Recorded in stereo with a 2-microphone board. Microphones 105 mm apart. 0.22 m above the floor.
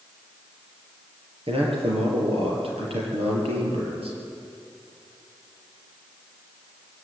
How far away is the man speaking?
About 6 m.